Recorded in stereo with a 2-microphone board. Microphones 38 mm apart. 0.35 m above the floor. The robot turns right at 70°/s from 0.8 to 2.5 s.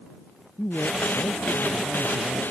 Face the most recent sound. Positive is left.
turn(degrees=-165)